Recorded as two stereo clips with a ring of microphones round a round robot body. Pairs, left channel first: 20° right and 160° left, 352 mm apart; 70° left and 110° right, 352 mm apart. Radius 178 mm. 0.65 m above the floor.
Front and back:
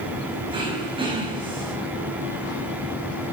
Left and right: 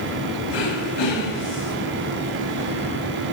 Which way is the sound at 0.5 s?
80° left.